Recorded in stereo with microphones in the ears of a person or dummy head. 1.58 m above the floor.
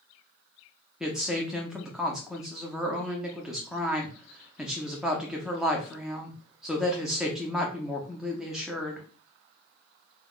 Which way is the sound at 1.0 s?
5° left (ahead or behind).